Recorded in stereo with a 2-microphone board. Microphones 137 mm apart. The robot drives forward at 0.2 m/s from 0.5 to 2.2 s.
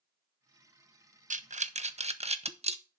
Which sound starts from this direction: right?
Breathing, at 1.3 s.